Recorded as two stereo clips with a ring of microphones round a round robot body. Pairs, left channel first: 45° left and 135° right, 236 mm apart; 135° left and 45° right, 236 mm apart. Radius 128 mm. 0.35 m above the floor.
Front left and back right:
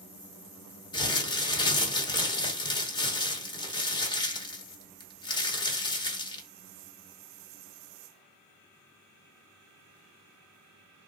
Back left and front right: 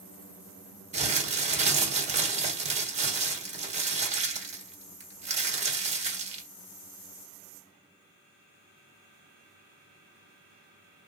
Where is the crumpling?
15° right, 1.3 m.